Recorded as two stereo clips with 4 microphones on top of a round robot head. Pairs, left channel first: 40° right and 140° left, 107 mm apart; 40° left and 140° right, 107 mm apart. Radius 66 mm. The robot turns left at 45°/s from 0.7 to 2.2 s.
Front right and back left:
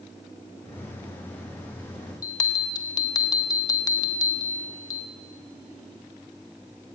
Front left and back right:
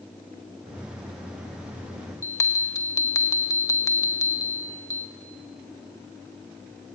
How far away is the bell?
About 0.6 m.